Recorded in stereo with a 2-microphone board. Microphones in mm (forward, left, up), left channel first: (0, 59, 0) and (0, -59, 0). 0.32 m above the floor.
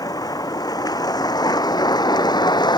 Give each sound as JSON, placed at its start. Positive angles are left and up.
{"t": 0.0, "sound": "a vehicle", "side_deg": 30}